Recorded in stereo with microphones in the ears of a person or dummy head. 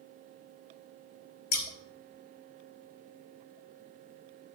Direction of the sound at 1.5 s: 45° left (ahead or behind).